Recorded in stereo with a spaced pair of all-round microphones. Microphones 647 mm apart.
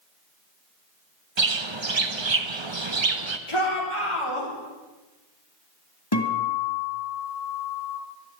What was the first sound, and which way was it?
A bird, 45° right (ahead or behind).